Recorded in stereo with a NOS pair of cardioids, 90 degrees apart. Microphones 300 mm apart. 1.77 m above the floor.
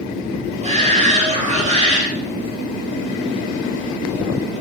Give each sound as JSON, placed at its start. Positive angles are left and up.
{"t": 0.6, "sound": "a shout", "azimuth_deg": -20, "distance_m": 8.5}